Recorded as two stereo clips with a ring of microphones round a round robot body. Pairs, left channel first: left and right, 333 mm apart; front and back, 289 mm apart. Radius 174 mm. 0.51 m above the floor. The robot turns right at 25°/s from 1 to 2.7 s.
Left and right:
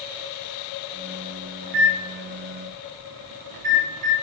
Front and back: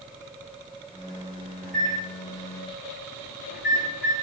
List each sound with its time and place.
1.6 s a microwave: 90° right, 3.5 m; by 4.1 s 60° right, 3.5 m